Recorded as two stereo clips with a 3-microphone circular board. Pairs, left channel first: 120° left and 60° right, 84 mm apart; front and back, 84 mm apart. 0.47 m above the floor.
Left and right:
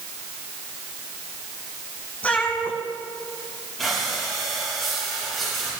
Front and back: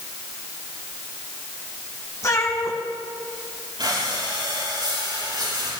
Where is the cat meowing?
50° left, 4 m.